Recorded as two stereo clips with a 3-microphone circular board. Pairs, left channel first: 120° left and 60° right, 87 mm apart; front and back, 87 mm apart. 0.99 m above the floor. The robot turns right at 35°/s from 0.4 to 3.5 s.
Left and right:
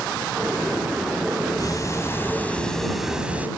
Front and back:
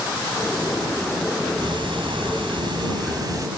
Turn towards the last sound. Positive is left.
turn(degrees=-130)